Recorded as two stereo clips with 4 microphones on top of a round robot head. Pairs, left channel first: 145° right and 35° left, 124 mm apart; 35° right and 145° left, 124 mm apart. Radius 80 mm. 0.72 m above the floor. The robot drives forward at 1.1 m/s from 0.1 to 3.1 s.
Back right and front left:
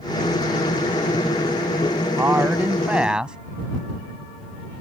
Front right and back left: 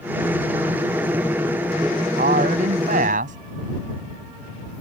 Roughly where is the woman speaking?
Left.